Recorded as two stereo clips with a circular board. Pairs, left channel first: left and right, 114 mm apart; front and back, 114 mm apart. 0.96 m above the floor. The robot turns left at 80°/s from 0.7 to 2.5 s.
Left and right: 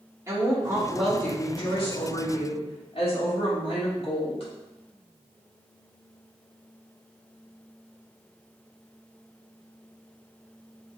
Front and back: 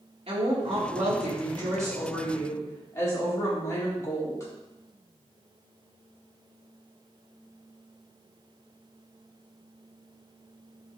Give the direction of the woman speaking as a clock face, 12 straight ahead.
5 o'clock.